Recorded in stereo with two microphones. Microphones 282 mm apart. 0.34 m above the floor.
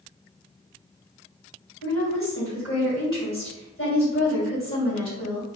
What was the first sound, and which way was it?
A woman speaking, 45° left (ahead or behind).